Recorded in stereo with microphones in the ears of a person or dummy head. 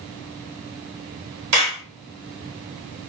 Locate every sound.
1.5 s a clap: 60° right (ahead or behind), 1.3 m